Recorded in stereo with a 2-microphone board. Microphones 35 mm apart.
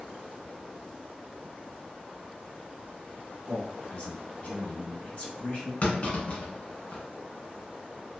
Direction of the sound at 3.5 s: 35° left (ahead or behind).